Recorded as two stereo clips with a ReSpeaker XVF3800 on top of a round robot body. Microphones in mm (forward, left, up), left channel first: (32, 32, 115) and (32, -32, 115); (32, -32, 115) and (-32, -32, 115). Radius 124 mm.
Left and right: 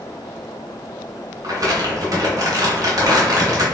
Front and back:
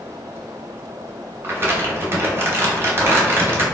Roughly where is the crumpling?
Behind right.